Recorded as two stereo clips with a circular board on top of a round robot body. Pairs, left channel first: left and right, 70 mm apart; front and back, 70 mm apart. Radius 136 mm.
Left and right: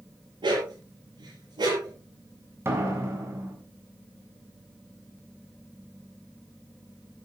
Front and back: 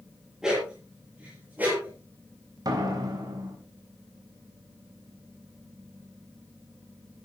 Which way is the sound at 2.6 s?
145° right.